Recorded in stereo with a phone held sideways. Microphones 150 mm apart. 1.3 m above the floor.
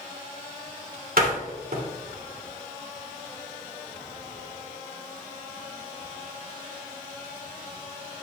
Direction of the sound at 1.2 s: 80° right.